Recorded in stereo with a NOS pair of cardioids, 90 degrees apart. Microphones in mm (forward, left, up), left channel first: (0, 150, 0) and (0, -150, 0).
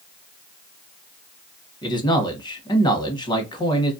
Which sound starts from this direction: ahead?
A man speaking, at 1.8 s.